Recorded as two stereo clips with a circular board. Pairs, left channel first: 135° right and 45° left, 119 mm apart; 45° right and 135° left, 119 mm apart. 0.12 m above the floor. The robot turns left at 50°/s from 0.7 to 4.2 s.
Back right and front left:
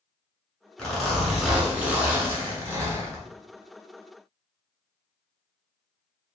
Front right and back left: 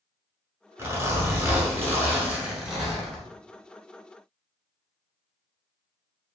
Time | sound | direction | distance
0.8 | a zipper | 155° left | 0.9 m